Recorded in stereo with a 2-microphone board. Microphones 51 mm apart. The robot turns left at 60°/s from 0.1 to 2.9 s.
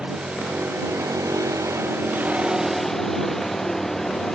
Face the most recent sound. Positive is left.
turn(degrees=175)